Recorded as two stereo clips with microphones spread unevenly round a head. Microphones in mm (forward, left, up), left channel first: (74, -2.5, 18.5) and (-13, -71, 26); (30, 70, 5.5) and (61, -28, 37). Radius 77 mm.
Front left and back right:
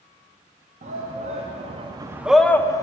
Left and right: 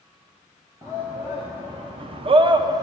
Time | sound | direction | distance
0.8 | a shout | 150° right | 1.2 m